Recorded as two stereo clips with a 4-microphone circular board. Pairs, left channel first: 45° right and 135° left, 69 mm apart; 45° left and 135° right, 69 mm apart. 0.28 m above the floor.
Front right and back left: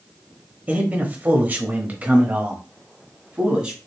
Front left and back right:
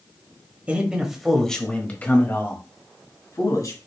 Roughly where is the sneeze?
No sneeze in this recording.